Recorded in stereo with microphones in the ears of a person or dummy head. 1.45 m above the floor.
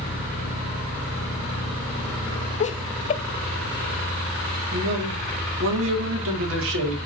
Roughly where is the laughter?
Left.